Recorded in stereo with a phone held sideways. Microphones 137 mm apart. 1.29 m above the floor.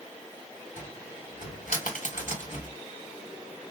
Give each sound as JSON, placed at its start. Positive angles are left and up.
{"t": 0.8, "sound": "a cupboard door", "side_deg": 70, "distance_m": 1.9}